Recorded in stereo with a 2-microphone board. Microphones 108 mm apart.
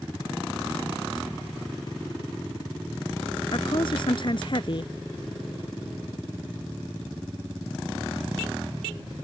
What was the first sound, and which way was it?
A woman speaking, 55° left (ahead or behind).